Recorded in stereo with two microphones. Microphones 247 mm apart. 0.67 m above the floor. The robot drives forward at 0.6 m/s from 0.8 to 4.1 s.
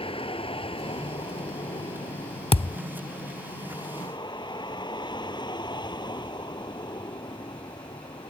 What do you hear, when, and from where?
0.0 s a vehicle: 20° left (ahead or behind); by 8.3 s 15° left (ahead or behind)
2.5 s a thud: 25° left (ahead or behind); by 2.8 s 20° left (ahead or behind)